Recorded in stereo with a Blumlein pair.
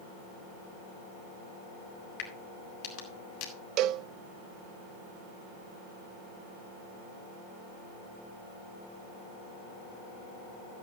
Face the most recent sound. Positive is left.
turn(degrees=-35)